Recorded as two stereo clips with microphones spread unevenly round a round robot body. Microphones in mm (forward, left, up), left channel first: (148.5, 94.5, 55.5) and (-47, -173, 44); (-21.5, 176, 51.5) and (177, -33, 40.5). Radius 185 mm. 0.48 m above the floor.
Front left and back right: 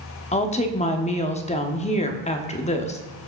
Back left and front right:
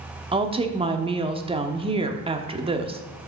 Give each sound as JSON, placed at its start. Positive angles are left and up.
{"t": 0.3, "sound": "a woman speaking", "azimuth_deg": 0, "distance_m": 1.1}